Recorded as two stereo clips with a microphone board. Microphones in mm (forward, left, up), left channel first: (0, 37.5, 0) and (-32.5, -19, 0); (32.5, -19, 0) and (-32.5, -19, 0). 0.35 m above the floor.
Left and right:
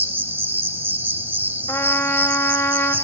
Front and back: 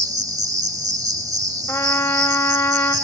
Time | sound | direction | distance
0.0 | an insect | 175° right | 0.8 m
1.7 | a trumpet | 35° left | 1.1 m